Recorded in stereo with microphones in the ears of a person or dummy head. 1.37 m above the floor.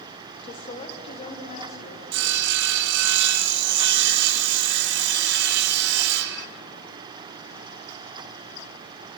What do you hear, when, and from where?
0.4 s a woman speaking: 20° left (ahead or behind), 1.0 m; by 2.0 s 35° left (ahead or behind), 1.9 m
2.1 s sawing: 65° right (ahead or behind), 1.0 m